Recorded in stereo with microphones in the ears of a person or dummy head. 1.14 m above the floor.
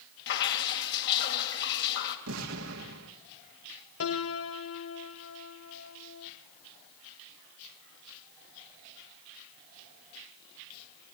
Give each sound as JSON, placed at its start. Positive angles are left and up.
{"t": 0.3, "sound": "dripping", "side_deg": 60, "distance_m": 3.0}
{"t": 2.3, "sound": "an explosion", "side_deg": -70, "distance_m": 2.0}
{"t": 4.0, "sound": "a piano", "side_deg": 70, "distance_m": 1.1}